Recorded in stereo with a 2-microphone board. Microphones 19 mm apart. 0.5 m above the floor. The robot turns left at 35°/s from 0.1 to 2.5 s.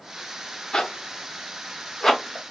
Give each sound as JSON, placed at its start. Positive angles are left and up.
{"t": 0.7, "sound": "a zipper", "side_deg": 50, "distance_m": 0.7}